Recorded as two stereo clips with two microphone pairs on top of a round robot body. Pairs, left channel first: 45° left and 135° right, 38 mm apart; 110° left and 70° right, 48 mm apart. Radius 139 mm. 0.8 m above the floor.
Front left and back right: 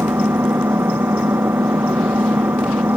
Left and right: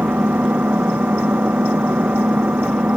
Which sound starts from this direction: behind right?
An engine running, at 0.0 s.